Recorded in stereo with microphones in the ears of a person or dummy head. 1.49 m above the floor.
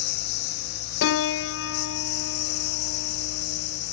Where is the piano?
65° left (ahead or behind).